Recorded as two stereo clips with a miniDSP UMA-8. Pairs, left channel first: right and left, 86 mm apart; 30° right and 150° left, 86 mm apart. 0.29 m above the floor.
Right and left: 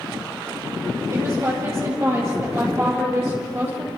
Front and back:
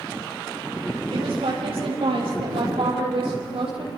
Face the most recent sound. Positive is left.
turn(degrees=155)